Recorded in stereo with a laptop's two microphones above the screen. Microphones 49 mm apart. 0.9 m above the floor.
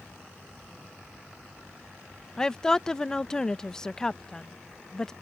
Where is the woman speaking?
15° left (ahead or behind).